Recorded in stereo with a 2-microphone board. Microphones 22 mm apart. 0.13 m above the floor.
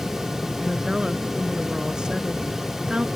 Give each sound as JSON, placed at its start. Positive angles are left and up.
{"t": 0.6, "sound": "a woman speaking", "side_deg": -40}